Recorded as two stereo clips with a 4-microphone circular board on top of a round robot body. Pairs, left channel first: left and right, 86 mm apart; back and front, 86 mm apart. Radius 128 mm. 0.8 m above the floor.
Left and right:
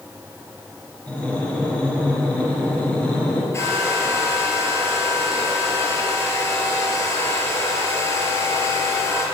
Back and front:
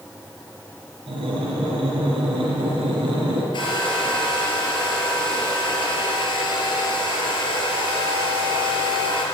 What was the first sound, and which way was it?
Breathing, 10° left.